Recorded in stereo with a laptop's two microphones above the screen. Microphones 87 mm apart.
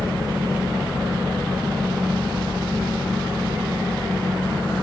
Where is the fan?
50° left (ahead or behind), 1.9 m.